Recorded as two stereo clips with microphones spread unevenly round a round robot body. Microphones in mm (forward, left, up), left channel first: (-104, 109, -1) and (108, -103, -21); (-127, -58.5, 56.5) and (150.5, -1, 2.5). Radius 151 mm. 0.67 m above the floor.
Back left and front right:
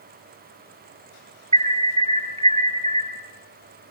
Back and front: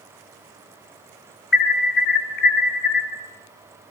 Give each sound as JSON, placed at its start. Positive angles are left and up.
{"t": 1.5, "sound": "an alarm", "azimuth_deg": -115, "distance_m": 2.5}